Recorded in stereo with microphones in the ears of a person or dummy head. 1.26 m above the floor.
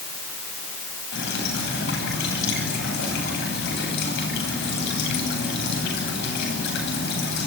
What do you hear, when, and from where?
1.1 s dripping: 60° left (ahead or behind), 10 m